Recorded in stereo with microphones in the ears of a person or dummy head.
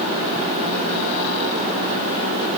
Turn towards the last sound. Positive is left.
No sound to turn to.